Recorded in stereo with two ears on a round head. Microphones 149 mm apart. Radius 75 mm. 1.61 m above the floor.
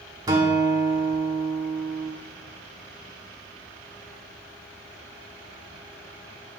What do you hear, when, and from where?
0.3 s a guitar: 20° right (ahead or behind), 1.3 m